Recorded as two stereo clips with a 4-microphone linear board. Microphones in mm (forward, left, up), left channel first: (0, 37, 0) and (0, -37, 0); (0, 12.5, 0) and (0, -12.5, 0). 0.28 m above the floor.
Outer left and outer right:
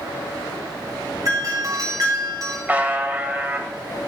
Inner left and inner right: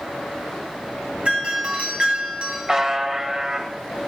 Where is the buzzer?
20° right (ahead or behind), 1.0 m.